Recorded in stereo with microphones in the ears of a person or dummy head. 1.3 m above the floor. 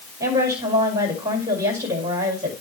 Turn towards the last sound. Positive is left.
turn(degrees=-20)  # may be behind; listen again after turning